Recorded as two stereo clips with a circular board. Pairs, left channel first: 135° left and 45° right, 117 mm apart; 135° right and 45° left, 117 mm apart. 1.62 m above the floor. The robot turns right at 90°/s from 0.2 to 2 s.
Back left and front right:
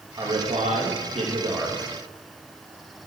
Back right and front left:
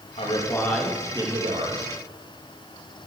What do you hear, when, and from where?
0.2 s a man speaking: 100° right, 3 m; by 1.9 s 55° left, 3 m